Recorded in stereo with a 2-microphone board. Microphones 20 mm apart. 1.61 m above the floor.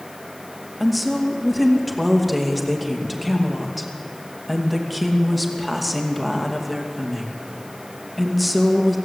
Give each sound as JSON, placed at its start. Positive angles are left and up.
{"t": 0.8, "sound": "a woman speaking", "side_deg": -5, "distance_m": 2.5}